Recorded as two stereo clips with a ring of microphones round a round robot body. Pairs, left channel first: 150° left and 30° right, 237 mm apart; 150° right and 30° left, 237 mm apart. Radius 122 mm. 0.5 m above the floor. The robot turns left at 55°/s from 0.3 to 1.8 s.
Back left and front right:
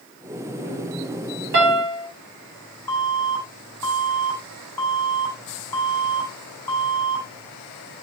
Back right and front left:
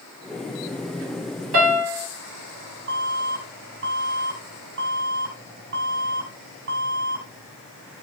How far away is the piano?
About 4 m.